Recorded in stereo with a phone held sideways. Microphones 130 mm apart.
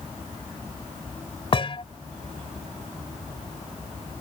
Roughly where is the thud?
Left.